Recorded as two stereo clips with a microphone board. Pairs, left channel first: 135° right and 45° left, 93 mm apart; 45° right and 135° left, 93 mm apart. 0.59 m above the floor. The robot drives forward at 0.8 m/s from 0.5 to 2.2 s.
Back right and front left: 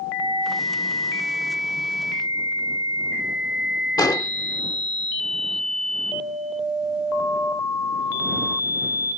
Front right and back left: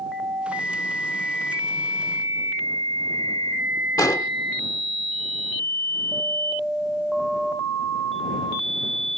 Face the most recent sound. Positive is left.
turn(degrees=-95)